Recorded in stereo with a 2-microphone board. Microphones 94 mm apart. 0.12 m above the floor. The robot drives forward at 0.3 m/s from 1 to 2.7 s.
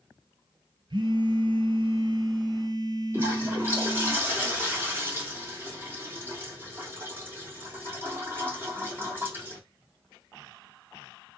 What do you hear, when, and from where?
0.9 s a phone buzzing: 60° right (ahead or behind), 0.7 m; by 4.1 s 50° right (ahead or behind), 0.8 m
3.1 s a toilet flushing: 25° right (ahead or behind), 3 m